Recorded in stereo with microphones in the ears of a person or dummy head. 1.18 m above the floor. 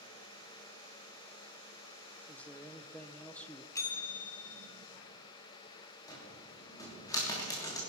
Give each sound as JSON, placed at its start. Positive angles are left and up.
{"t": 2.3, "sound": "a man speaking", "side_deg": 5, "distance_m": 0.6}
{"t": 3.8, "sound": "a bell", "side_deg": 15, "distance_m": 1.5}
{"t": 6.1, "sound": "a cupboard door", "side_deg": 20, "distance_m": 3.0}